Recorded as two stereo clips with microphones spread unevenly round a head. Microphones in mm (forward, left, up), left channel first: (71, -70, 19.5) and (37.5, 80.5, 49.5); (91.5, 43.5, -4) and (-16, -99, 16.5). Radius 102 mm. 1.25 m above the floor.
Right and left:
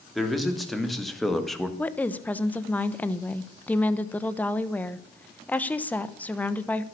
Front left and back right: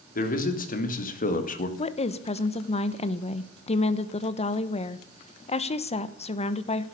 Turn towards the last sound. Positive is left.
turn(degrees=0)